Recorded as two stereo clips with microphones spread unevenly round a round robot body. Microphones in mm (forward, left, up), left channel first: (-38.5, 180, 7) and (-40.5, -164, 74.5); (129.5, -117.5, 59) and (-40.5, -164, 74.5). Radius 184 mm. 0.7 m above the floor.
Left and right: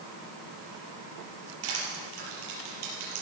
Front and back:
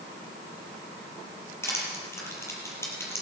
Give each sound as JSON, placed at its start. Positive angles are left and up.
{"t": 1.6, "sound": "crushing", "azimuth_deg": -60, "distance_m": 5.5}